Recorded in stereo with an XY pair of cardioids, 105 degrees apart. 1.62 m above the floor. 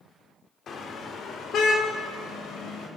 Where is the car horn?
55° left, 2.5 m; by 2.9 s 75° left, 5.5 m.